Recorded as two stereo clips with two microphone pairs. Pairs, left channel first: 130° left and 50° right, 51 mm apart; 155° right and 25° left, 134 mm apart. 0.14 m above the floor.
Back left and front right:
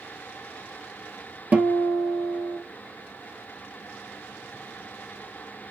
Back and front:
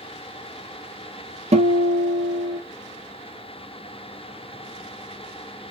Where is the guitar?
Straight ahead, 1.3 m.